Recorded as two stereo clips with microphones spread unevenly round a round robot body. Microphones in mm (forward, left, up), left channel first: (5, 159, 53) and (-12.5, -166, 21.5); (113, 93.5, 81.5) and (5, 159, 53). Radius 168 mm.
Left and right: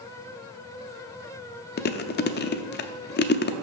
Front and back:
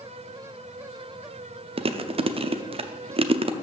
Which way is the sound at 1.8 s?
145° left.